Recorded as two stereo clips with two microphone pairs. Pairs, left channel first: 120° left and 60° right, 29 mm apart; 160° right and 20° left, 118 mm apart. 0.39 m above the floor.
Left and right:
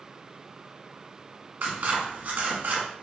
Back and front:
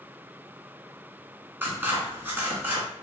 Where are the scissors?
50° right, 1.1 m.